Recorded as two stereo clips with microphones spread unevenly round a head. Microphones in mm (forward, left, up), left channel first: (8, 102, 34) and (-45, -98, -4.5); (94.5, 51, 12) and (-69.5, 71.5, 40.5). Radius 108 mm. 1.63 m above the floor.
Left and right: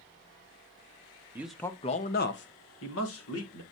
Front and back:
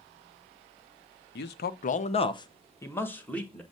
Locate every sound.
1.4 s a man speaking: 20° right, 0.8 m; by 3.6 s 80° left, 1.9 m